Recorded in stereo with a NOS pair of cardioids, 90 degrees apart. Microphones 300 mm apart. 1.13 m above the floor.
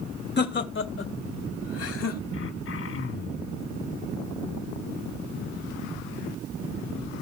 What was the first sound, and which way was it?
Laughter, 35° left.